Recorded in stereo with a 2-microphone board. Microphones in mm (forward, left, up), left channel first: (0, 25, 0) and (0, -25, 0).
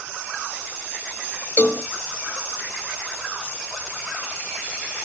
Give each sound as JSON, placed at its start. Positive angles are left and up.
{"t": 1.6, "sound": "a cowbell", "side_deg": 50, "distance_m": 1.1}